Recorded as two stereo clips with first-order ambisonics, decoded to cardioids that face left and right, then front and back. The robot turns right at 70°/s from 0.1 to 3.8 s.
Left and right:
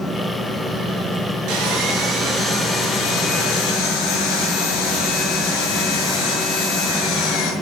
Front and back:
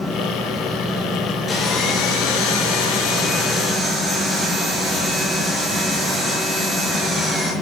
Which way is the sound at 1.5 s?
70° right.